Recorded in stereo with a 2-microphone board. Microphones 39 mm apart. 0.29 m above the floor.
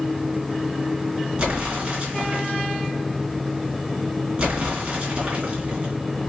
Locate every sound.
1.4 s an explosion: 30° right (ahead or behind), 2.5 m